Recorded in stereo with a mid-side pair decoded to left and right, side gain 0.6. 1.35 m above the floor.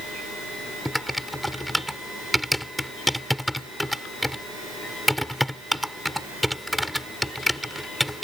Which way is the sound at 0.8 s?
Straight ahead.